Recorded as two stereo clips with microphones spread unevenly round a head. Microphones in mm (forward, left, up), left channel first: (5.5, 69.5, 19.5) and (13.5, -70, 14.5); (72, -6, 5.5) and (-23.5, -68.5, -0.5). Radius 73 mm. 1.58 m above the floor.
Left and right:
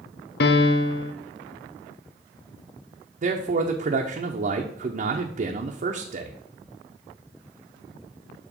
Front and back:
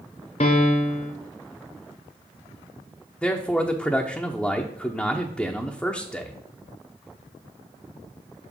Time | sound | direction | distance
0.4 | a piano | 90° left | 0.7 m
3.2 | a man speaking | 50° right | 0.8 m